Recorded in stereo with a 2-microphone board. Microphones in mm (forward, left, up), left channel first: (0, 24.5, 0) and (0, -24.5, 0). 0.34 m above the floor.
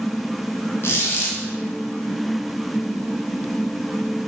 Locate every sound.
0.8 s a squeak: 55° left (ahead or behind), 1.1 m